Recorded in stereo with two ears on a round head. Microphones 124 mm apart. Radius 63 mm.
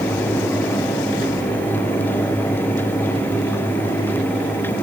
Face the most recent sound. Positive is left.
No sound to turn to.